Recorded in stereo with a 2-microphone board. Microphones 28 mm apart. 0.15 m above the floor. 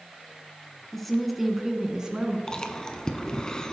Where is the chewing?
25° left (ahead or behind), 0.8 m.